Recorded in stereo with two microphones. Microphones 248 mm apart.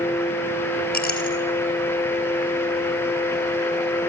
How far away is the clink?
About 3.5 m.